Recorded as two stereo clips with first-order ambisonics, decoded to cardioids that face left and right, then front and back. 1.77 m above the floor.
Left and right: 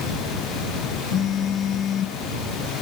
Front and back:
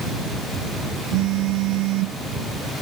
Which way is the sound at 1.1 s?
155° left.